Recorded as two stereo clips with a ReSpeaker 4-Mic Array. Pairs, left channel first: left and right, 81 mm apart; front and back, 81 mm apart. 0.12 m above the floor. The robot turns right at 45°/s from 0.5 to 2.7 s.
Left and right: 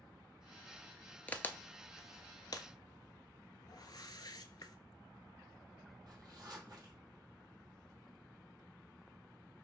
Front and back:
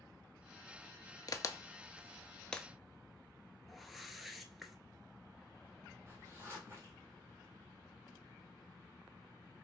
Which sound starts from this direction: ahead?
A crack, at 1.3 s.